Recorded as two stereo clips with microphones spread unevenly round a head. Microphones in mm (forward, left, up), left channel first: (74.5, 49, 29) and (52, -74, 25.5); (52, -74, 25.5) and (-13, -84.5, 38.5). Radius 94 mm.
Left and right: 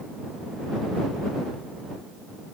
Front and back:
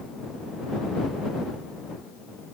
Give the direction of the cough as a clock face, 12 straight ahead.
I don't hear a cough.